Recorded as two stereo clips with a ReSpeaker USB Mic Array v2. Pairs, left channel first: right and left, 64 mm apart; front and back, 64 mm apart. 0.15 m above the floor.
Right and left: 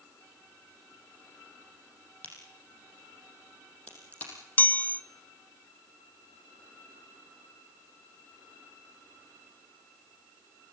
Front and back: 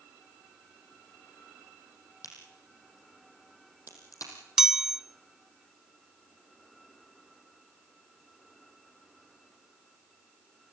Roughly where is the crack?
Ahead right.